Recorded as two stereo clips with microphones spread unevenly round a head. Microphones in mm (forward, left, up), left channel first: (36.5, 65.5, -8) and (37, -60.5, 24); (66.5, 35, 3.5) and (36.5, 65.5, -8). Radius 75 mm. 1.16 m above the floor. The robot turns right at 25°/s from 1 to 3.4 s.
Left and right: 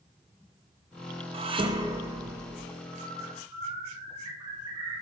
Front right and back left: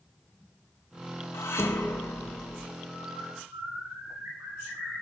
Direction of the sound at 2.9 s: 165° right.